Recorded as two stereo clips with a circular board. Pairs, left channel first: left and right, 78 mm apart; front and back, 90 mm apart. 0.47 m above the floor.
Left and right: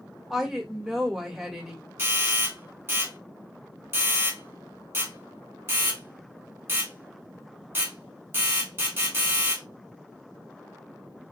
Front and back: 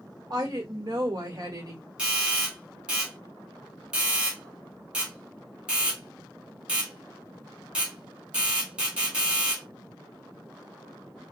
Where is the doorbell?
110° right, 1.8 m.